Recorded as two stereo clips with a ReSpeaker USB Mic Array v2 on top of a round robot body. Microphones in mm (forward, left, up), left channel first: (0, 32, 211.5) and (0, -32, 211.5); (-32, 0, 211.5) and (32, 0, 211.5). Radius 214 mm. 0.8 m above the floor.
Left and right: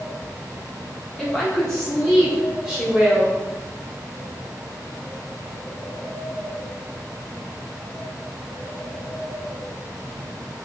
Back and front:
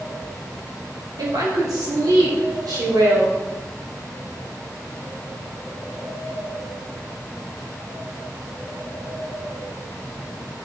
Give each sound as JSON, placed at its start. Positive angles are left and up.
{"t": 1.2, "sound": "a woman speaking", "azimuth_deg": 10, "distance_m": 3.0}